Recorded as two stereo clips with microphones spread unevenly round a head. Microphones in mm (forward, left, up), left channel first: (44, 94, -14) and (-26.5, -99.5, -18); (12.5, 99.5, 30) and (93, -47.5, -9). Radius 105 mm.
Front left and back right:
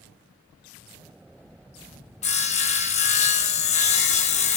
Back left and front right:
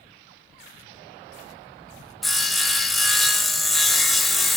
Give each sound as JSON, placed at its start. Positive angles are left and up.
{"t": 2.2, "sound": "sawing", "azimuth_deg": 20, "distance_m": 1.0}